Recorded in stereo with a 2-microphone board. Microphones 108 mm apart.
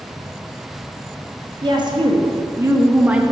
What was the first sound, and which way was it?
A woman speaking, 45° right (ahead or behind).